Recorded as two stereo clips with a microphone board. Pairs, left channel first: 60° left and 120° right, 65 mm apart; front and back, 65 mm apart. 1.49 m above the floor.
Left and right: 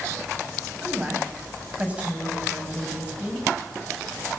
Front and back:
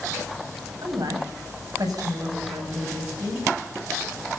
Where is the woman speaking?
170° left, 8.5 m.